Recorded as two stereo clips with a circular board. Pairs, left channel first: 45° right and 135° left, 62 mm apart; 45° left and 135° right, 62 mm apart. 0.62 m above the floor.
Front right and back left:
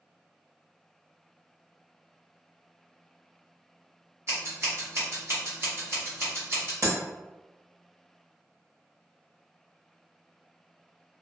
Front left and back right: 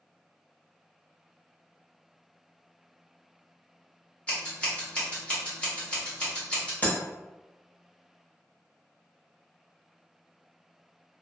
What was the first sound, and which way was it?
Scissors, 110° left.